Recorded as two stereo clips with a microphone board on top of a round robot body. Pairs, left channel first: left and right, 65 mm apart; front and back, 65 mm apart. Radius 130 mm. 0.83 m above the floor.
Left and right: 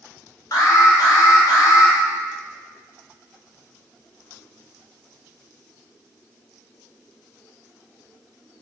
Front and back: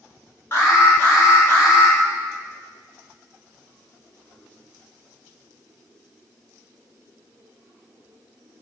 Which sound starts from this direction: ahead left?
An alarm, at 0.5 s.